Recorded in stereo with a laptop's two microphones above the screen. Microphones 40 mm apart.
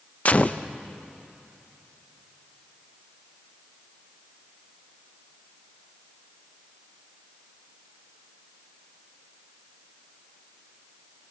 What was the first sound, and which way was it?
A gunshot, 35° left (ahead or behind).